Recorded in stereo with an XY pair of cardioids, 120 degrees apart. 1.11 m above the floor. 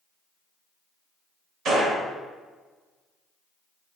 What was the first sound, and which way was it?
A gunshot, 50° right.